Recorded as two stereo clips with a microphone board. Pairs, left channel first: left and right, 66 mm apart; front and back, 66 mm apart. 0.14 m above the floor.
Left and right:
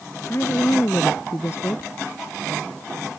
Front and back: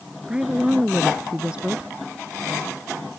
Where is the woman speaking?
110° left.